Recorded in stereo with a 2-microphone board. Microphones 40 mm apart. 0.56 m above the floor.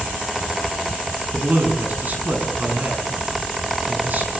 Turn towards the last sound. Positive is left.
turn(degrees=-45)  # may be behind; listen again after turning